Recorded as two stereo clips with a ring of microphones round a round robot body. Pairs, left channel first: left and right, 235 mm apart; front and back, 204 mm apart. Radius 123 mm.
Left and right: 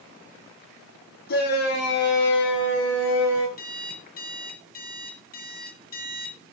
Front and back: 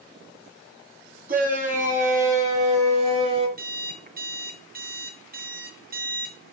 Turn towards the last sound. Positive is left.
turn(degrees=140)